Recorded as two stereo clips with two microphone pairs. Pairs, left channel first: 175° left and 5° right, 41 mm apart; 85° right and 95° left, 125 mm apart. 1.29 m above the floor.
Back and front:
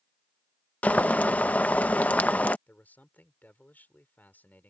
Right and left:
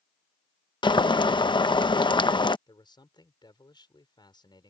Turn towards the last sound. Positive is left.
turn(degrees=-140)